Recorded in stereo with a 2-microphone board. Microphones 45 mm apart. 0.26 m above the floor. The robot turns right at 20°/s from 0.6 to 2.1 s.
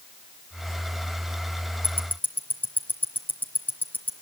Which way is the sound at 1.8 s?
50° left (ahead or behind).